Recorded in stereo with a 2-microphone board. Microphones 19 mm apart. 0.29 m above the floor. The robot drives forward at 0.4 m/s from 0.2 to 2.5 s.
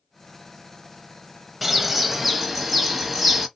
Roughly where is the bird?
Centre.